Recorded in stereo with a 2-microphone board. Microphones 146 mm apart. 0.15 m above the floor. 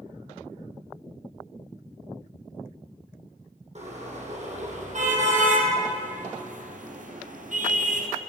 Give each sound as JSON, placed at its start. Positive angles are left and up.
{"t": 3.8, "sound": "a car horn", "side_deg": -55, "distance_m": 3.5}